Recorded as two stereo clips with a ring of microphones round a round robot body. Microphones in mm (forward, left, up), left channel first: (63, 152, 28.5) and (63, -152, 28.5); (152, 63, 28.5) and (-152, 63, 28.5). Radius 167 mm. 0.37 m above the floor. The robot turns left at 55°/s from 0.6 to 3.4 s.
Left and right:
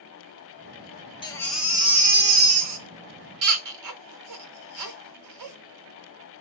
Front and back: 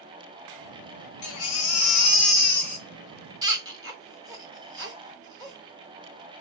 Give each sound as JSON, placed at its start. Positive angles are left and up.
{"t": 1.2, "sound": "a baby crying", "azimuth_deg": 20, "distance_m": 1.2}